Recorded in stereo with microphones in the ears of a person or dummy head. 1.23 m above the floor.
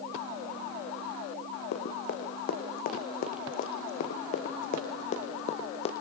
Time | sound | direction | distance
1.7 | running footsteps | 55° left (ahead or behind) | 5 m